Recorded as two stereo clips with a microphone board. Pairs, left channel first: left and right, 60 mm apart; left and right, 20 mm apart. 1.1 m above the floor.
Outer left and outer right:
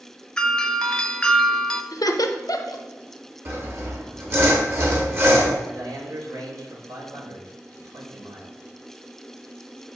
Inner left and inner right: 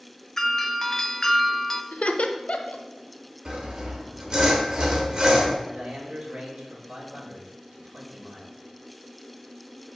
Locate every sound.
0.4 s a doorbell: 15° left (ahead or behind), 0.6 m
1.9 s laughter: 80° left, 0.9 m
3.5 s sawing: 40° right (ahead or behind), 1.7 m
5.6 s a man speaking: 80° right, 2.5 m